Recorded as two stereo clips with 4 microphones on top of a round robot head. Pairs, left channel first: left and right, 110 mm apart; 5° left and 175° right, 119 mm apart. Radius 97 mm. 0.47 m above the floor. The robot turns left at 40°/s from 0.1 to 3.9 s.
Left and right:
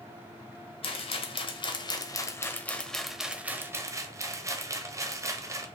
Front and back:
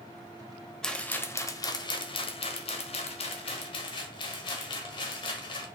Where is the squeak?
No squeak in this recording.